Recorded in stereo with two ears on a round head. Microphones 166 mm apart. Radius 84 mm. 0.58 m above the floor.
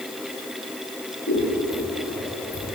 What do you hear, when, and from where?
1.3 s scissors: 75° left (ahead or behind), 7.5 m